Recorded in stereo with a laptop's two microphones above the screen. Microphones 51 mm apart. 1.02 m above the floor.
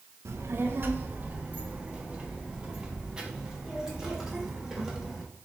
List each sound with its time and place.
0.2 s a child speaking: 60° right (ahead or behind), 0.7 m; by 5.2 s 5° right (ahead or behind), 3 m